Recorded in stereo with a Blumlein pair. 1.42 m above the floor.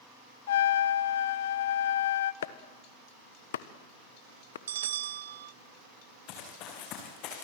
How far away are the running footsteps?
About 5.5 m.